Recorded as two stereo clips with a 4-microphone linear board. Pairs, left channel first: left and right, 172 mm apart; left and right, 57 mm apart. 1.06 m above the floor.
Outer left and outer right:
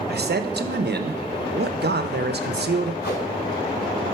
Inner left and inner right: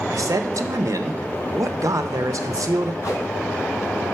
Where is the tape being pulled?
75° left (ahead or behind), 3 m.